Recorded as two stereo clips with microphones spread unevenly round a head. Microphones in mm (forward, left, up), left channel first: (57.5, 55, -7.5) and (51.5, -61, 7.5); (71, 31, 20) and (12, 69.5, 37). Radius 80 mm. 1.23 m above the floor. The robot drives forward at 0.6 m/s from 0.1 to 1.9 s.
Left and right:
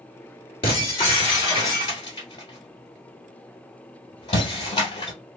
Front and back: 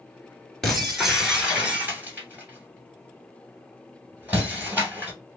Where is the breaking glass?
60° left, 1.6 m; by 5.1 s 105° left, 1.5 m.